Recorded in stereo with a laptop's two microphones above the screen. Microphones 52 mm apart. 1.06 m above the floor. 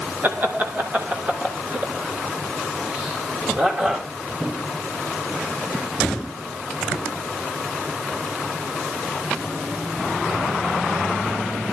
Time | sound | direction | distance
0.2 | laughter | 40° right (ahead or behind) | 2 m